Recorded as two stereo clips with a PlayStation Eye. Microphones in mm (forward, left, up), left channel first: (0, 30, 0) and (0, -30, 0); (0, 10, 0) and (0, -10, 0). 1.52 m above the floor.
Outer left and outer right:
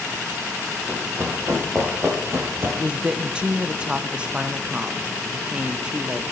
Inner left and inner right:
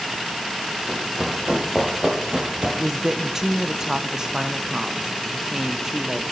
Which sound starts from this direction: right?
Running footsteps, at 0.9 s.